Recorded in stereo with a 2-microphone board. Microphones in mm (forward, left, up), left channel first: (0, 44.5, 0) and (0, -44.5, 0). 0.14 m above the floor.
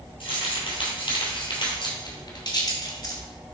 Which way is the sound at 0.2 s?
70° left (ahead or behind).